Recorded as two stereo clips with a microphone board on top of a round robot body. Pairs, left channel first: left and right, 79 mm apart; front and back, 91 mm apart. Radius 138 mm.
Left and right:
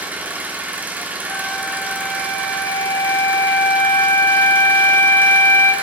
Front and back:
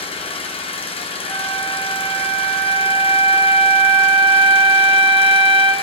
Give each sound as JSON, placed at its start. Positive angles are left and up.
{"t": 0.0, "sound": "an engine running", "azimuth_deg": -20, "distance_m": 1.9}
{"t": 1.3, "sound": "a flute", "azimuth_deg": 25, "distance_m": 1.9}